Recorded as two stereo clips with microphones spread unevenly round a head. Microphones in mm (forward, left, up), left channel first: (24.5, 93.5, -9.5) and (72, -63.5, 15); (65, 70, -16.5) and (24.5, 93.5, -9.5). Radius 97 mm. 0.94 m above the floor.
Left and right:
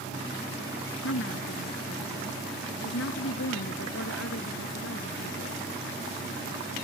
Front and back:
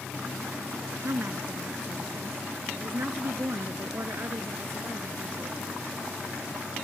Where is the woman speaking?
120° left; by 5.6 s 115° left.